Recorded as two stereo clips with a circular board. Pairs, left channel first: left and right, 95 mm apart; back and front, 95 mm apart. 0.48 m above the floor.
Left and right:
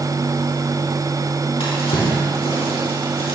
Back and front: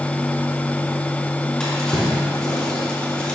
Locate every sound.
1.6 s a drawer: 95° left, 3 m